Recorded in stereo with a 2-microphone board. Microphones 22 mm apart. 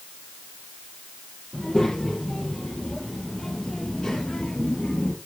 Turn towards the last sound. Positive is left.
turn(degrees=45)  # may be behind; listen again after turning